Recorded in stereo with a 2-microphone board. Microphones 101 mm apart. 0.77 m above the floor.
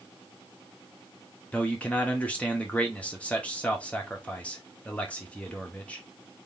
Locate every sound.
1.5 s a man speaking: 15° left (ahead or behind), 0.9 m